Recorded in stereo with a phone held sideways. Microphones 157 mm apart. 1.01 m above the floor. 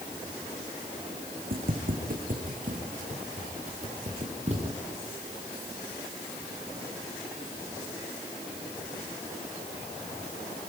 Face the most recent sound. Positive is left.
turn(degrees=-45)  # may be behind; listen again after turning